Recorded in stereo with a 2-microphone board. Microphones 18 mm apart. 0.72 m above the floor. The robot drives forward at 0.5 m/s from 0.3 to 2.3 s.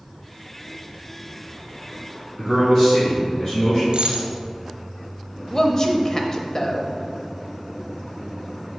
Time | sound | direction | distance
2.4 | a man speaking | 35° left (ahead or behind) | 2 m
3.9 | a dropped coin | 65° right (ahead or behind) | 1.1 m
5.5 | a woman speaking | 30° left (ahead or behind) | 0.7 m